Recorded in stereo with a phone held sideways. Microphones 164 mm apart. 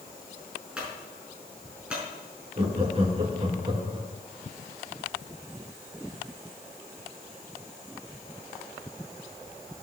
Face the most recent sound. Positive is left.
turn(degrees=-35)  # may be behind; listen again after turning